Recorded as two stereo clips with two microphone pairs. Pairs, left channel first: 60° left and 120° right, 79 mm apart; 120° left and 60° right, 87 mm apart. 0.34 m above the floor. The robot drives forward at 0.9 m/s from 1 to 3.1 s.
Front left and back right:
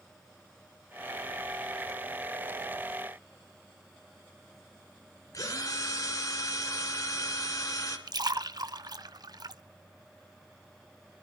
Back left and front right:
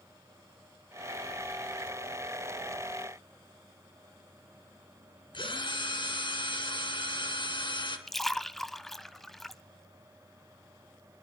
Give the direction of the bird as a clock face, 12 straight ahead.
No bird in this recording.